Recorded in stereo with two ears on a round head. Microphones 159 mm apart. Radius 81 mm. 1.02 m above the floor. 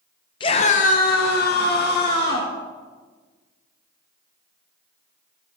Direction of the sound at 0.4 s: 25° left (ahead or behind).